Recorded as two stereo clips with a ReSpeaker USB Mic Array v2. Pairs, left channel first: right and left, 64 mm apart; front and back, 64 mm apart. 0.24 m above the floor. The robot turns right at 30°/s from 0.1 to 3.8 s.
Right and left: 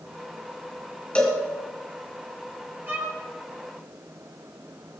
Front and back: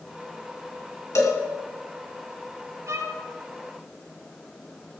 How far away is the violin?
About 4 m.